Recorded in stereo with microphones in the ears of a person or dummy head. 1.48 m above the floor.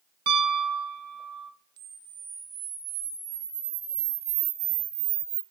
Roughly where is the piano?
Right.